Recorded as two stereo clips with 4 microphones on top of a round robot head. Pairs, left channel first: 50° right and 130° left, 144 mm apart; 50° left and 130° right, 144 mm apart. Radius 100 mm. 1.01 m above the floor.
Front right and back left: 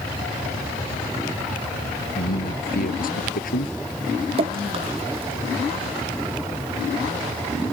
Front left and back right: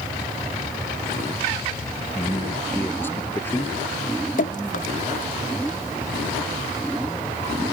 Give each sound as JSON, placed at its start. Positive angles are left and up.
{"t": 2.1, "sound": "a man speaking", "azimuth_deg": -25}
{"t": 4.4, "sound": "dripping", "azimuth_deg": 80}